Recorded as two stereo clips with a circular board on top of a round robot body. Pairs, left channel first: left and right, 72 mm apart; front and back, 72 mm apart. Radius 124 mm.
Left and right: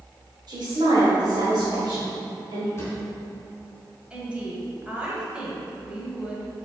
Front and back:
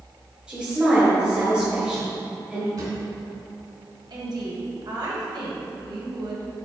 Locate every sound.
0.5 s a woman speaking: 105° right, 2 m
2.8 s a drawer: 150° left, 2 m
4.1 s a woman speaking: 165° right, 2 m